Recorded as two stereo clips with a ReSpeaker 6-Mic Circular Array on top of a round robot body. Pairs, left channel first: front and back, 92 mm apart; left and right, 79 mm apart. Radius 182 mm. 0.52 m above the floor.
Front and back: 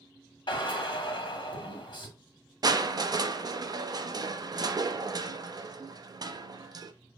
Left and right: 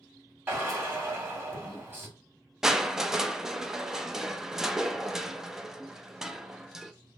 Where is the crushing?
170° right, 0.6 m.